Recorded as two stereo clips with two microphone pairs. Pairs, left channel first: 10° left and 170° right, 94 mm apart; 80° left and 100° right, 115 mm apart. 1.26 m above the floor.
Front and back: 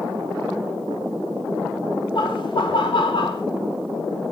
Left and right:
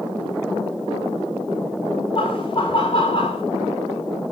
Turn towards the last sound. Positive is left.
turn(degrees=40)